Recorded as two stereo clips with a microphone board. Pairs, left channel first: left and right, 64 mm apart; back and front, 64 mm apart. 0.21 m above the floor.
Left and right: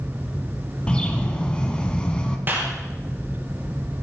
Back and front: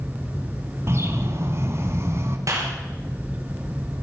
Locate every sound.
0.9 s a bird: 25° left, 1.6 m
2.5 s a clap: 30° right, 3.5 m